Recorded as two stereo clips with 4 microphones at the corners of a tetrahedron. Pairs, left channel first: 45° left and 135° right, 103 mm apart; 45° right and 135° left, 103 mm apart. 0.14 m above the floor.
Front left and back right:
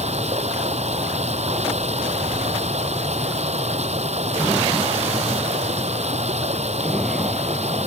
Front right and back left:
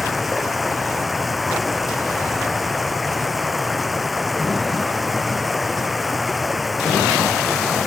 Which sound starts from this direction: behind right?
Running water, at 0.0 s.